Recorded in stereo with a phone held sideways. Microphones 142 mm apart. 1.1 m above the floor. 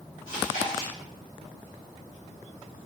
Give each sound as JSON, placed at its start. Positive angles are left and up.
{"t": 0.3, "sound": "chewing", "side_deg": 75, "distance_m": 1.5}